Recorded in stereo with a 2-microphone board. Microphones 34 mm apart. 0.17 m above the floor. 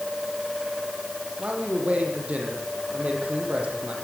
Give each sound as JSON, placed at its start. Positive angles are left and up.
{"t": 1.4, "sound": "a man speaking", "side_deg": -40, "distance_m": 6.5}